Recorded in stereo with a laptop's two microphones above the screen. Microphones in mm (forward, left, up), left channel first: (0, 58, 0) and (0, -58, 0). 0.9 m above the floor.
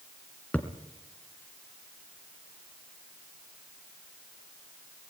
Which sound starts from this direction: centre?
A thud, at 0.5 s.